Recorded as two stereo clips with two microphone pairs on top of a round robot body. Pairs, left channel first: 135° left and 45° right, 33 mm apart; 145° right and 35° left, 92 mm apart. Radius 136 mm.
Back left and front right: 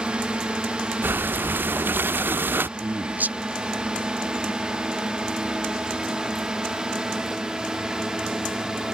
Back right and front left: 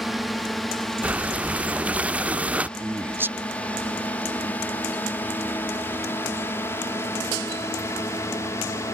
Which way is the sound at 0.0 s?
55° right.